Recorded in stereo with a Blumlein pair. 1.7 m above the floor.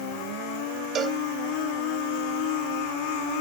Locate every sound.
0.9 s a cowbell: 25° right